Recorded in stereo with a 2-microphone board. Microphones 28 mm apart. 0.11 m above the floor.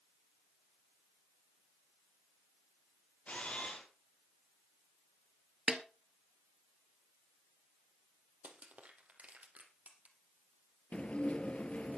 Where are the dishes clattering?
45° left (ahead or behind), 1.3 m.